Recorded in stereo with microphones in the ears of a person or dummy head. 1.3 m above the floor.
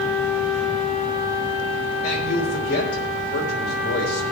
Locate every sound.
2.0 s a man speaking: 40° left (ahead or behind), 3 m